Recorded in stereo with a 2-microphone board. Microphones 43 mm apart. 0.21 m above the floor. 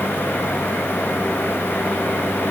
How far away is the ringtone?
I don't hear a ringtone.